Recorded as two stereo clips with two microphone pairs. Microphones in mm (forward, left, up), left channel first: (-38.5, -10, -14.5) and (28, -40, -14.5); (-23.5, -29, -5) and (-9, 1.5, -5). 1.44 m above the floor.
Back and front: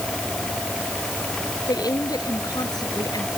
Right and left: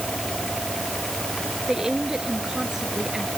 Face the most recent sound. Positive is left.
turn(degrees=135)